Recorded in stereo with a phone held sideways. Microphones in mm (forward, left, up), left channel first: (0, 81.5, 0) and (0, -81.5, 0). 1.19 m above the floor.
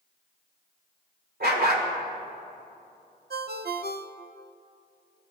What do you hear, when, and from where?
1.4 s a dog barking: 75° right (ahead or behind), 2 m
3.3 s a ringtone: 85° right, 0.5 m